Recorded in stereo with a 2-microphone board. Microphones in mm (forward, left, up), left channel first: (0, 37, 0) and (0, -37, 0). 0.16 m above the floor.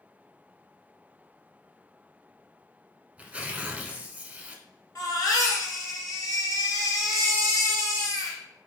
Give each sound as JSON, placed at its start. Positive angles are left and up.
{"t": 3.2, "sound": "tearing paper", "side_deg": -20, "distance_m": 0.7}
{"t": 5.0, "sound": "a baby crying", "side_deg": 55, "distance_m": 1.8}